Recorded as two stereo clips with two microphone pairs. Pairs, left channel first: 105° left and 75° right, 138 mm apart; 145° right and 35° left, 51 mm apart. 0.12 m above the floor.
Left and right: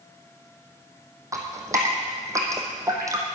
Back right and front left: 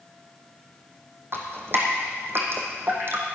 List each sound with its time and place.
1.3 s dripping: 5° right, 2.5 m